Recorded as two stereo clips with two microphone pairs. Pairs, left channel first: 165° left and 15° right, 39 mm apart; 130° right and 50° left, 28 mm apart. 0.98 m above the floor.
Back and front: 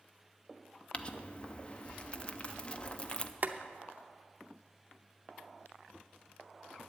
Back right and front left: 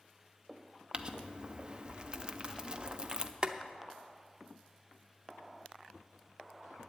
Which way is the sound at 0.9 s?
105° left.